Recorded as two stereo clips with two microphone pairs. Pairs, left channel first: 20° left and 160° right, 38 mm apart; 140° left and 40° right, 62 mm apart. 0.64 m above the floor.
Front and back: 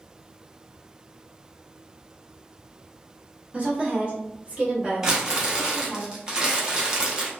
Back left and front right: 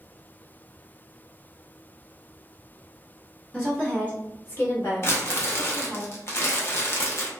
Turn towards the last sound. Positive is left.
turn(degrees=140)